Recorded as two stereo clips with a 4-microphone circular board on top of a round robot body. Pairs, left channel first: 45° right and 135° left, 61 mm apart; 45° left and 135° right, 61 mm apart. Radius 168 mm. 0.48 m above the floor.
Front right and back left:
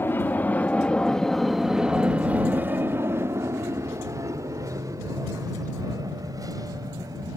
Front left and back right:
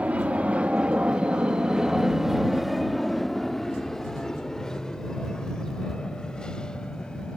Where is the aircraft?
80° right; by 7.4 s 120° left.